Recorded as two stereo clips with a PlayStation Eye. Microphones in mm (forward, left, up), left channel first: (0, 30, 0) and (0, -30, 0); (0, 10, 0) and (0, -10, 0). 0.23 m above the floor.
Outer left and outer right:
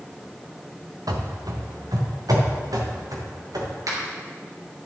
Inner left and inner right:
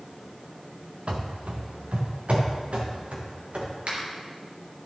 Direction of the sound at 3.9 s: 70° right (ahead or behind).